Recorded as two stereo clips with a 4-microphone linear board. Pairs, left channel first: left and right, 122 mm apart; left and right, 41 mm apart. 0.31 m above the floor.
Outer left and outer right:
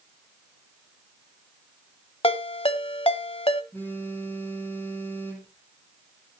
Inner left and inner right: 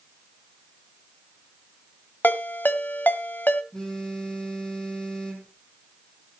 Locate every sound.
2.2 s a ringtone: 50° left (ahead or behind), 1.1 m
3.7 s a phone buzzing: 15° left (ahead or behind), 5 m